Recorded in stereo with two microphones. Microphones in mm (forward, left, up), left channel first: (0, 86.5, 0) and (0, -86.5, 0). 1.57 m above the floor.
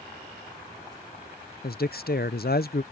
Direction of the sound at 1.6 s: 60° left (ahead or behind).